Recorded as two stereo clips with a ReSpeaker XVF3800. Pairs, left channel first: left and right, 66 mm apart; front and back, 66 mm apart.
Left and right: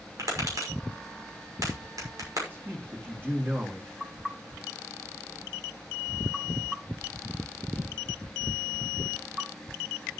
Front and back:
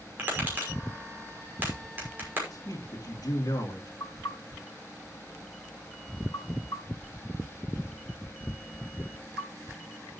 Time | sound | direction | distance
0.2 | tapping | 120° right | 6 m
2.5 | a man speaking | 30° right | 2.5 m
4.0 | knocking | 10° right | 3.5 m